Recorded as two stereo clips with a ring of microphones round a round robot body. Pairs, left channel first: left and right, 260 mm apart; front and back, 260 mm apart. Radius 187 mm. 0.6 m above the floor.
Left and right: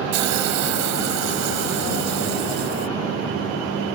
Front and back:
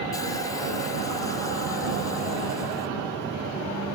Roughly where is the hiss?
Right.